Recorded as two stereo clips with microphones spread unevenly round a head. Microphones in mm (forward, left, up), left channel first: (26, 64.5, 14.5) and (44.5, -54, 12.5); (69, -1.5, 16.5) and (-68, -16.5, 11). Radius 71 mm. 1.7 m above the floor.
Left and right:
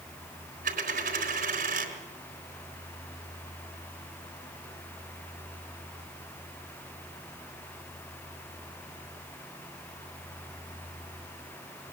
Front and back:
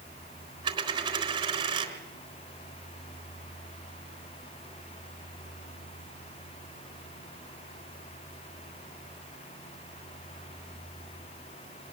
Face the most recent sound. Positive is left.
turn(degrees=-115)